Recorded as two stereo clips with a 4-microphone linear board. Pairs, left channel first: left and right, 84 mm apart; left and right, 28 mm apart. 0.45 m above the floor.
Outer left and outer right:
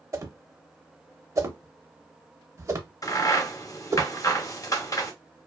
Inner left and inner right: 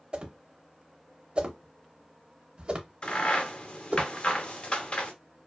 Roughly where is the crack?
Left.